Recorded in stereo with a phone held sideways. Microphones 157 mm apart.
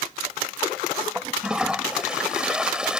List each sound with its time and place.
1.1 s a toilet flushing: 5° right (ahead or behind)